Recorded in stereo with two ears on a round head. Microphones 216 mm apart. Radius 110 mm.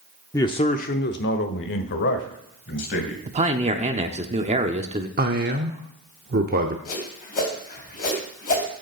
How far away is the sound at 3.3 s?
About 0.8 m.